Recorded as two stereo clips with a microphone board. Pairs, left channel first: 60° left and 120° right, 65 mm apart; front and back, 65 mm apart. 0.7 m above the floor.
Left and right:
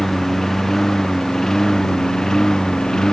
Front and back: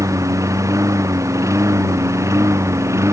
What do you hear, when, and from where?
0.0 s a lawn mower: 145° left; by 3.1 s 140° left